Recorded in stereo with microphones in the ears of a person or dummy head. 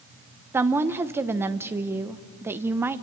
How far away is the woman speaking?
About 0.8 m.